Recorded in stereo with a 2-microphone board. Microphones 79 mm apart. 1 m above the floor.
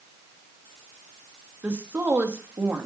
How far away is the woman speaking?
About 1.3 m.